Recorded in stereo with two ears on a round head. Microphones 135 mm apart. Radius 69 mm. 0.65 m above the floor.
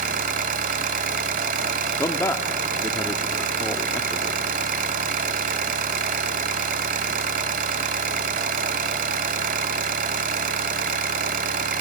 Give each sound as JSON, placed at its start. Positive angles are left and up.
{"t": 0.0, "sound": "an engine running", "side_deg": -55, "distance_m": 1.2}
{"t": 2.0, "sound": "a man speaking", "side_deg": 15, "distance_m": 1.1}